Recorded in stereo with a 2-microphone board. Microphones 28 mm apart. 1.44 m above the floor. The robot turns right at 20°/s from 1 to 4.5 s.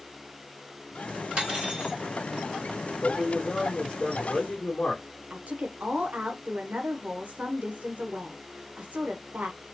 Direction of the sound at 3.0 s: 25° left (ahead or behind).